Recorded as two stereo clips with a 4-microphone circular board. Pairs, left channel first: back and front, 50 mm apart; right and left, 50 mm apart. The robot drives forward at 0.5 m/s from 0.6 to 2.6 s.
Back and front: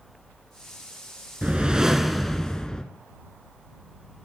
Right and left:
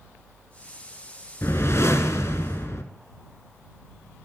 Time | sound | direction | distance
1.4 | a whoosh | 65° right | 0.8 m